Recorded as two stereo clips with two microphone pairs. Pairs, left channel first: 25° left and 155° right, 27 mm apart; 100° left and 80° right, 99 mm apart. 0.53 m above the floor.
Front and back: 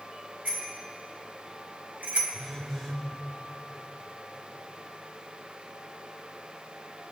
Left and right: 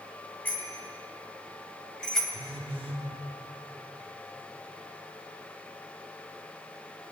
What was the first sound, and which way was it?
A bicycle bell, 175° left.